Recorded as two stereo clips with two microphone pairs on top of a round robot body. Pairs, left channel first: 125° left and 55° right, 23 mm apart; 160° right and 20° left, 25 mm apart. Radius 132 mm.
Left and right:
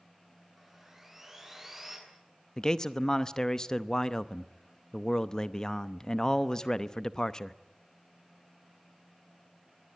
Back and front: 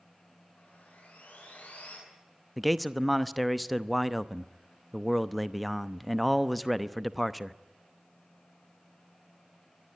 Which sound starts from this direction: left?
A man speaking, at 2.6 s.